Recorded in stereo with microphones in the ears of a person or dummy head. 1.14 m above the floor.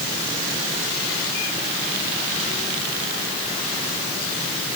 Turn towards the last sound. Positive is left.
No sound to turn to.